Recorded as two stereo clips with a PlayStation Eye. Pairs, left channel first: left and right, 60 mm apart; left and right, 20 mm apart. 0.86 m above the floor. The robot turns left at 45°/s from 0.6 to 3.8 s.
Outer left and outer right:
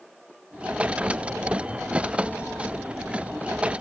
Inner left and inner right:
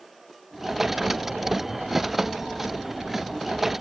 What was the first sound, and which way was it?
Only background noise.